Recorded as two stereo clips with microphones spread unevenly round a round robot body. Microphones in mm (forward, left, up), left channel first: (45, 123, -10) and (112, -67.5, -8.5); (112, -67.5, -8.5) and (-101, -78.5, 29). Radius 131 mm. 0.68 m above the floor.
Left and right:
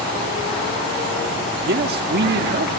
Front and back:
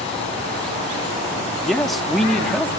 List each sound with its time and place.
1.6 s a man speaking: 75° right, 1.6 m